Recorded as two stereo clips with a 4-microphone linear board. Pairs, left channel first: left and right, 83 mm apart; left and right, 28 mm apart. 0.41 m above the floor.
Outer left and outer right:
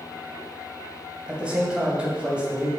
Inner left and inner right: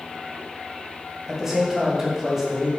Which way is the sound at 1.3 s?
10° right (ahead or behind).